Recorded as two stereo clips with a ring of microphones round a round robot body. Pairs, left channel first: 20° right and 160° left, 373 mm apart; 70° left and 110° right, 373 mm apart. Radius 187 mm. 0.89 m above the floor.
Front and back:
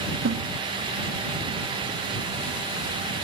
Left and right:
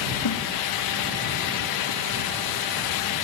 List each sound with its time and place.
0.2 s a snare drum: 100° left